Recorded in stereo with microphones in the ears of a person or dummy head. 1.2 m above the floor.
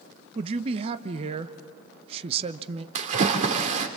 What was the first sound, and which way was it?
A man speaking, 30° right (ahead or behind).